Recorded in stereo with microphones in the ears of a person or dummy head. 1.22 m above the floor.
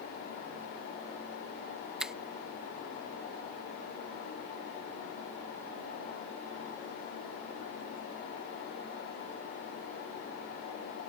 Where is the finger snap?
10° right (ahead or behind).